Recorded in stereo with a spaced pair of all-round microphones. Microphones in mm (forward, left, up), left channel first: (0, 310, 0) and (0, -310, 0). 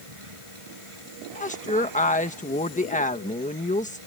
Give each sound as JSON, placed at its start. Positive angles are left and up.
{"t": 0.0, "sound": "a machine running", "side_deg": -60}
{"t": 1.4, "sound": "a woman speaking", "side_deg": 15}